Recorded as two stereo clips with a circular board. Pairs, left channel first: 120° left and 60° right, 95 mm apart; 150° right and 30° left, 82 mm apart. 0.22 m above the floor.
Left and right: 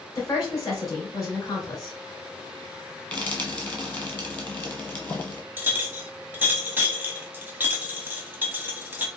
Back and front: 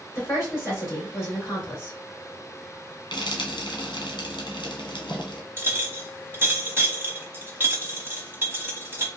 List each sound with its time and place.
0.1 s a woman speaking: 160° left, 2.5 m
3.1 s frying: 170° right, 1.3 m
5.6 s a clink: 10° right, 0.8 m